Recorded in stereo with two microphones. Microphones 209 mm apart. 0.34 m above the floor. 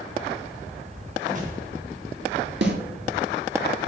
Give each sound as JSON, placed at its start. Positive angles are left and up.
{"t": 1.2, "sound": "a whoosh", "side_deg": -40, "distance_m": 3.5}
{"t": 2.6, "sound": "a snare drum", "side_deg": -60, "distance_m": 2.0}